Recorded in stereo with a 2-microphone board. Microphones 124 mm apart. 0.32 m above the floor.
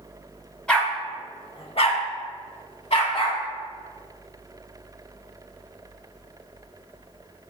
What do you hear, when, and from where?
0.7 s a dog barking: 10° left (ahead or behind), 0.8 m; by 3.4 s 50° left (ahead or behind), 1.3 m